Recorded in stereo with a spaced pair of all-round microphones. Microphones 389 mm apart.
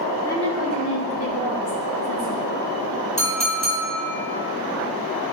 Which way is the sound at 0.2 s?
5° left (ahead or behind).